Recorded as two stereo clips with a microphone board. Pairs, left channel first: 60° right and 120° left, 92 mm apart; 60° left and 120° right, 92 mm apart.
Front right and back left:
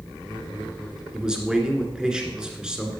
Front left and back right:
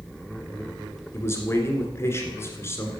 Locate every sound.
1.1 s a man speaking: 50° left, 1.6 m